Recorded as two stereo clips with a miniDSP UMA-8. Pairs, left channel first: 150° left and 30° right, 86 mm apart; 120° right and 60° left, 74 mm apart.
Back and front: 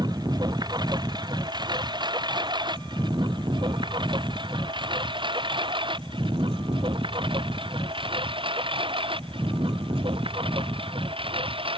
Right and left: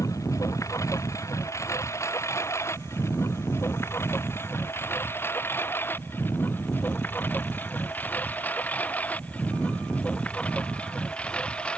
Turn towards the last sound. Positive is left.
turn(degrees=-45)